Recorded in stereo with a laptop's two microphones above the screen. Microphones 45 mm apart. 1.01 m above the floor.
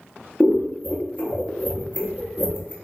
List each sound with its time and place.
0.4 s scissors: 30° left (ahead or behind), 0.5 m